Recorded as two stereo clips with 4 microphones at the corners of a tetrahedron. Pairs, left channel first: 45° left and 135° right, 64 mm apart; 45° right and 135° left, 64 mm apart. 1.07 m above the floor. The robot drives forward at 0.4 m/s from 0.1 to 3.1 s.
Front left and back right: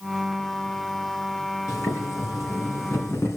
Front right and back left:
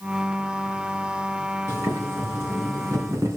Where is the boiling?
85° left, 3.5 m; by 3.4 s 90° left, 3.5 m.